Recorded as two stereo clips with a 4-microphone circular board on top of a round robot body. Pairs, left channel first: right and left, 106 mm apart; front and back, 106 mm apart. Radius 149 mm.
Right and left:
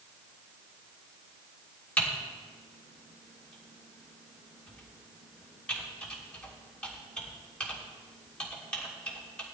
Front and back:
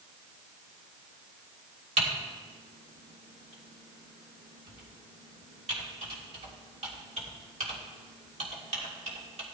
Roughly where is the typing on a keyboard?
Behind.